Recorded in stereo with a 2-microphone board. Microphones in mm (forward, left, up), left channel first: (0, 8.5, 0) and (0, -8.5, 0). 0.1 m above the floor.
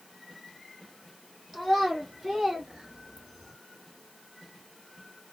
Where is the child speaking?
15° right (ahead or behind), 2.5 m; by 3.5 s 25° right (ahead or behind), 1.4 m.